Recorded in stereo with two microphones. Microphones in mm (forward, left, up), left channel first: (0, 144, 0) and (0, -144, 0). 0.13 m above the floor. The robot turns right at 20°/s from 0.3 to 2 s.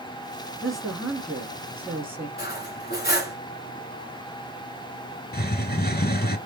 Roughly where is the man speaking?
Centre.